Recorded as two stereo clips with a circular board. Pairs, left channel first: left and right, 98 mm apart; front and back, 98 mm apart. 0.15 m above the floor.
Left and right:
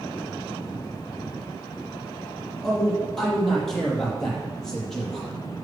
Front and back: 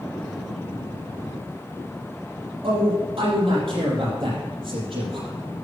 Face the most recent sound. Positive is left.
turn(degrees=175)